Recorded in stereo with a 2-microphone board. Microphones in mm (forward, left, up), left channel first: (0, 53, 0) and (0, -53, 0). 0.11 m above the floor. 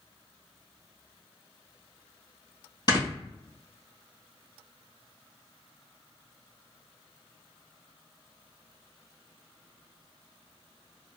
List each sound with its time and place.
2.9 s snoring: 40° left (ahead or behind), 1.9 m